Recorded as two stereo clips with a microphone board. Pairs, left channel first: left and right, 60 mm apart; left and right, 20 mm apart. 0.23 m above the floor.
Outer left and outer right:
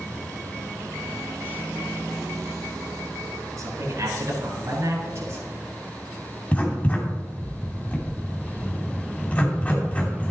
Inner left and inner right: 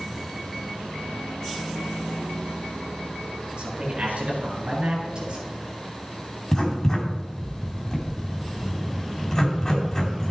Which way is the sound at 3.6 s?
65° right (ahead or behind).